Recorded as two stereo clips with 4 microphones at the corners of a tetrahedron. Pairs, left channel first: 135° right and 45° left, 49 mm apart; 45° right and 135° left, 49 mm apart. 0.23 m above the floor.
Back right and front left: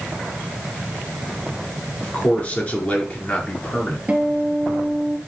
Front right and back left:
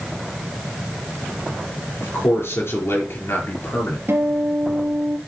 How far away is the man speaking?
About 4.5 m.